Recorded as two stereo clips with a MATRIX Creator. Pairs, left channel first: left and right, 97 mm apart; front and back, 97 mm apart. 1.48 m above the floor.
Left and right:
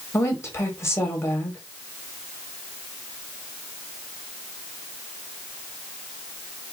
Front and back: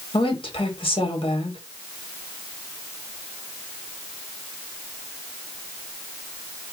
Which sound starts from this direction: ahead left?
A woman speaking, at 0.1 s.